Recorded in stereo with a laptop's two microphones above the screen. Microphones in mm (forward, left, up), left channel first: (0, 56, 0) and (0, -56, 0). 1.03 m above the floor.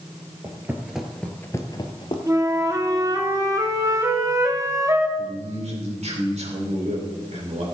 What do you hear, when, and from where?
0.4 s footsteps: 25° right (ahead or behind), 1.3 m; by 2.2 s 50° left (ahead or behind), 1.5 m
2.3 s a flute: 30° right (ahead or behind), 0.9 m
5.2 s a man speaking: 80° right, 3.5 m